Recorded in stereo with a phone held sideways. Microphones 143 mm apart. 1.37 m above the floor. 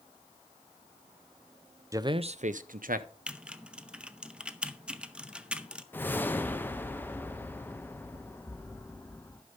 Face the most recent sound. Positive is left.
turn(degrees=15)  # may be behind; listen again after turning